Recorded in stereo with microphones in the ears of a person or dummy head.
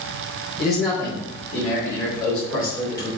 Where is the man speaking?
35° left (ahead or behind), 2.5 m; by 3.1 s 30° left (ahead or behind), 4 m.